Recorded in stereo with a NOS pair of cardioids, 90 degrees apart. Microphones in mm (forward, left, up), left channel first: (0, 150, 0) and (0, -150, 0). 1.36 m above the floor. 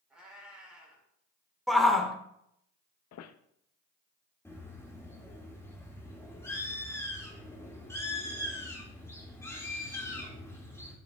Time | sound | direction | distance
0.1 | a cat meowing | 5° right | 3.5 m
1.7 | a shout | straight ahead | 1.5 m
3.1 | a squeak | 60° left | 0.6 m
4.5 | a bird | 10° left | 1.9 m